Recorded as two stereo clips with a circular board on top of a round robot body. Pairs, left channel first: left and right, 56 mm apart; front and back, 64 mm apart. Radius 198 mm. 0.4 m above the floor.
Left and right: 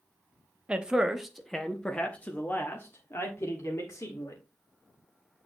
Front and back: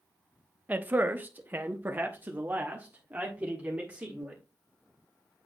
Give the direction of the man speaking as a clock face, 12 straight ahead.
5 o'clock.